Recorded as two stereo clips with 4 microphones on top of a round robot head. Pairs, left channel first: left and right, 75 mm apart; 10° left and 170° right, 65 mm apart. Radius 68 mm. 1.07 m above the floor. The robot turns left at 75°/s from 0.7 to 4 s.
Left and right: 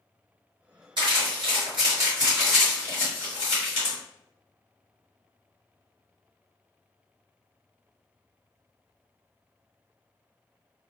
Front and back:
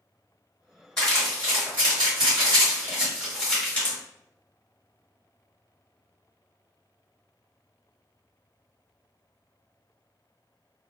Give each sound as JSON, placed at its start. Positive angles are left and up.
{"t": 1.0, "sound": "crumpling", "azimuth_deg": -75, "distance_m": 1.8}